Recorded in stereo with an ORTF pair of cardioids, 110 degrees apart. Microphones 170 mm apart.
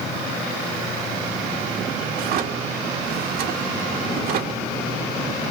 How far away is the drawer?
About 1.0 m.